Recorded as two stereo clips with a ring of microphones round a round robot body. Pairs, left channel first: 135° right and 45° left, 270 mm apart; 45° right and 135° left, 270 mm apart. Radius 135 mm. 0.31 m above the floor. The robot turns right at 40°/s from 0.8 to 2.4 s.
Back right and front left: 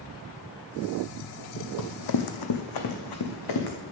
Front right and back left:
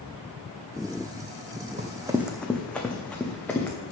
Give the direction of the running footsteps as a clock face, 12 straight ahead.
5 o'clock.